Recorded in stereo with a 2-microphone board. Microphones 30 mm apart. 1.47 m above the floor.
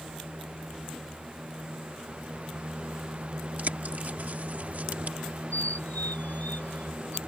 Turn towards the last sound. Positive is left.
turn(degrees=75)  # may be behind; listen again after turning